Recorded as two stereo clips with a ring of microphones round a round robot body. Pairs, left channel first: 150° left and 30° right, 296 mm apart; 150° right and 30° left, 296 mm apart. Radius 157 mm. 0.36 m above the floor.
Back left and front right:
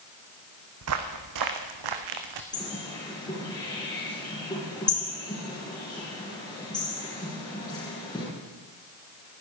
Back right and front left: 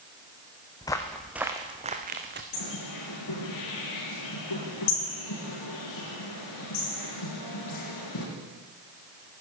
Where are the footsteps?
75° right, 1.4 m; by 2.4 s 25° right, 1.7 m.